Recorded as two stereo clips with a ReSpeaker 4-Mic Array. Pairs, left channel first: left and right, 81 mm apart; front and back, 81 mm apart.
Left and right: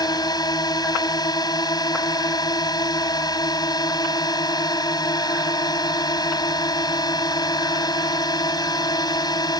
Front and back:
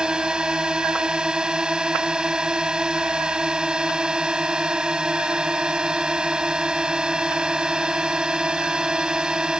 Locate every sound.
0.0 s a drone: 100° left